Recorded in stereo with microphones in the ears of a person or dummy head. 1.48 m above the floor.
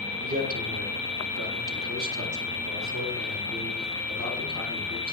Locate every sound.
0.2 s a man speaking: 45° right (ahead or behind), 1.6 m; by 5.1 s 85° right, 3.5 m